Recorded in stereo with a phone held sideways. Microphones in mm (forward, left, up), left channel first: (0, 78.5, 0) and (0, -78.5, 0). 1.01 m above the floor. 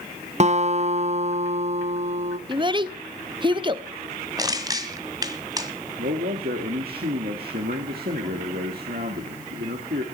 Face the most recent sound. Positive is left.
turn(degrees=-85)